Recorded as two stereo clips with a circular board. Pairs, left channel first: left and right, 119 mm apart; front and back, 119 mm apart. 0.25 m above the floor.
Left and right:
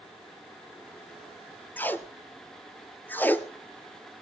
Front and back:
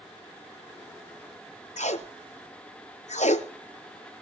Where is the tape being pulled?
15° left, 0.9 m.